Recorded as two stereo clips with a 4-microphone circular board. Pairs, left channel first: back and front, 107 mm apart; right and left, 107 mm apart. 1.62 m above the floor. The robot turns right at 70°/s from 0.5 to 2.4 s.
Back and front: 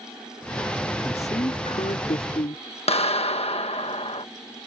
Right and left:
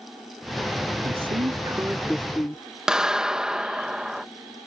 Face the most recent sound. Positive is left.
turn(degrees=175)